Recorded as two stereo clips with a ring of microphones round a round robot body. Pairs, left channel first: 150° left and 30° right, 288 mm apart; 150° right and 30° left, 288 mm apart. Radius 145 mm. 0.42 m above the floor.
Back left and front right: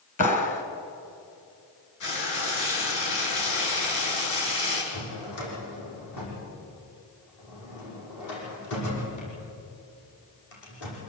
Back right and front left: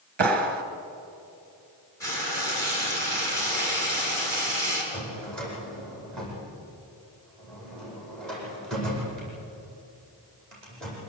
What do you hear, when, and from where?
0.2 s a clap: 85° left, 2.5 m
2.0 s frying: 130° left, 7 m
4.9 s a drawer: 120° left, 9 m